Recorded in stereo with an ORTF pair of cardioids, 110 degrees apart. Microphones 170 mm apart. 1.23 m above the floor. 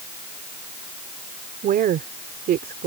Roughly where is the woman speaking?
Ahead right.